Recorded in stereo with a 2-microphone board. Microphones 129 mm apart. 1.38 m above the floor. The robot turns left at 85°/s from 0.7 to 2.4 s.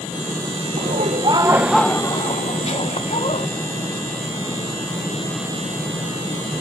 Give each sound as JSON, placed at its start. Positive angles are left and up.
{"t": 0.8, "sound": "laughter", "azimuth_deg": -95, "distance_m": 1.3}